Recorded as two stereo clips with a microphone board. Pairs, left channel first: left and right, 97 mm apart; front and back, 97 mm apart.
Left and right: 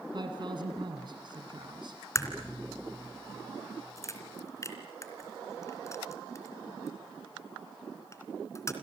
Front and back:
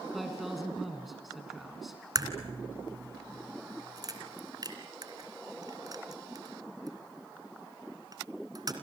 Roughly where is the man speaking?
Right.